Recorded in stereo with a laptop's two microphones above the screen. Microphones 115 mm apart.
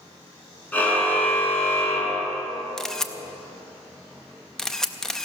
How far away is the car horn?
About 5.5 m.